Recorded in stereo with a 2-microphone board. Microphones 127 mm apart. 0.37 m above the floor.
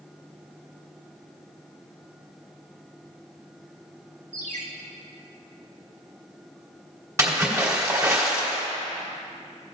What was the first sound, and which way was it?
A ringtone, 70° right (ahead or behind).